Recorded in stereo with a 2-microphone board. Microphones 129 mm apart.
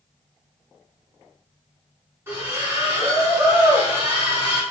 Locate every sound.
2.3 s a splash: 20° right (ahead or behind), 1.4 m